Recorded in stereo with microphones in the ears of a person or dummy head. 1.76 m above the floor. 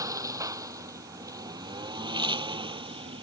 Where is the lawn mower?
20° right (ahead or behind); by 3.2 s 30° right (ahead or behind).